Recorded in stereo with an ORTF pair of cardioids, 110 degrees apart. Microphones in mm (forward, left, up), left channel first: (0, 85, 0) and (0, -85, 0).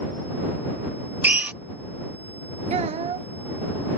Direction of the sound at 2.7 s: 40° right.